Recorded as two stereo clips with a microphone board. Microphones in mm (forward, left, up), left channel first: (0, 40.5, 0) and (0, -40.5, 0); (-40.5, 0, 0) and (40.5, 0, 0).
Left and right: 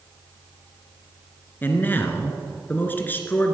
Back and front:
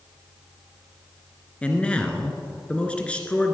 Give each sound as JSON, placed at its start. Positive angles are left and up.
{"t": 1.6, "sound": "a man speaking", "azimuth_deg": 120, "distance_m": 1.4}